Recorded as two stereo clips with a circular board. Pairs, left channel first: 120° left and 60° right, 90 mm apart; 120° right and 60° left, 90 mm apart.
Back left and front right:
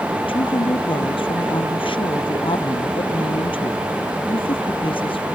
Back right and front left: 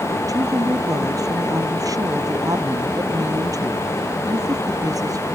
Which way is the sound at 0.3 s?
110° left.